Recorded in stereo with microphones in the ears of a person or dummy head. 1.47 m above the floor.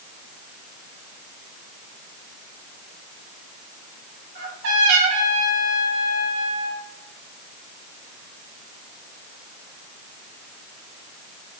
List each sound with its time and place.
4.3 s a trumpet: 65° right (ahead or behind), 3 m